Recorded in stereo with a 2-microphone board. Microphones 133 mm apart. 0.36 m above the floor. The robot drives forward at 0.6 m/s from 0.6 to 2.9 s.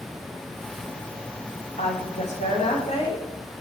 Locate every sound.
1.8 s a woman speaking: 60° left (ahead or behind), 2.5 m; by 3.2 s 55° left (ahead or behind), 2.5 m